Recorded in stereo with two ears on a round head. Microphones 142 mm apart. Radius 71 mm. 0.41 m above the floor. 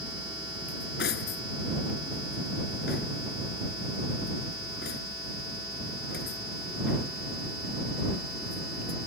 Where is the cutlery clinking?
65° left (ahead or behind).